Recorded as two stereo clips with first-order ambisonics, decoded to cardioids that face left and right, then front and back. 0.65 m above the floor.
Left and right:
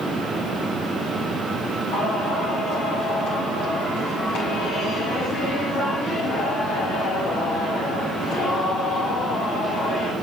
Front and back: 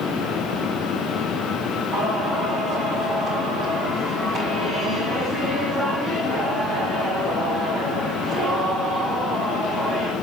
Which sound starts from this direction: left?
Singing, at 1.9 s.